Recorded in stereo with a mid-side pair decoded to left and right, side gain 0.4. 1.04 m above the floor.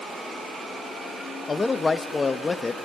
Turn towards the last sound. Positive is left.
turn(degrees=30)